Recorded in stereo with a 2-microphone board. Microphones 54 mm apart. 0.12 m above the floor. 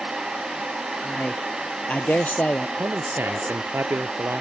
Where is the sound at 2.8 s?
45° right (ahead or behind).